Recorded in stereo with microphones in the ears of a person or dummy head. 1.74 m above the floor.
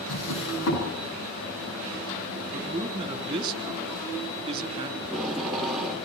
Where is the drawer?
70° left (ahead or behind), 8 m.